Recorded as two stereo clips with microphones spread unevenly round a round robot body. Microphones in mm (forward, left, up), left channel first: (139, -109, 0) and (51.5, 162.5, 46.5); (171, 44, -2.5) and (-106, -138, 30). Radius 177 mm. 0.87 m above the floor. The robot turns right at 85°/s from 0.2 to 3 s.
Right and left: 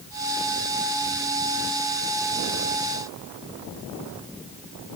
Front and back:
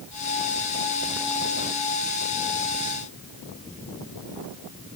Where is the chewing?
I don't hear chewing.